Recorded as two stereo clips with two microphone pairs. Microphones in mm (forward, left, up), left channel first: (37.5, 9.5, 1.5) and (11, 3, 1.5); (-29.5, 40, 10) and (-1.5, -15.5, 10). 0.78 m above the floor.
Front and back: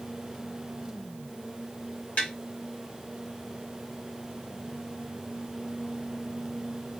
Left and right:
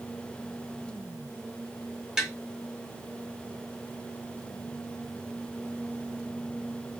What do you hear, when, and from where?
2.2 s tapping: 15° left, 1.5 m